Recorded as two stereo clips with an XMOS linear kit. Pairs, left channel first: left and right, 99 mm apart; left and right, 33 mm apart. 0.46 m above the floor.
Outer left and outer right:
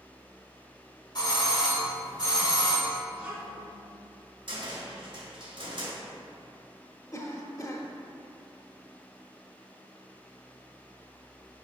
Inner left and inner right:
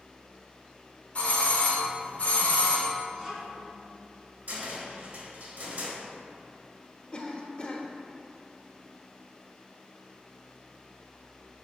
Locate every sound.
1.1 s a doorbell: 45° left (ahead or behind), 1.6 m
3.1 s a child speaking: 15° right (ahead or behind), 2.5 m
4.5 s a cupboard door: 55° right (ahead or behind), 1.7 m
7.1 s a cough: 35° left (ahead or behind), 0.9 m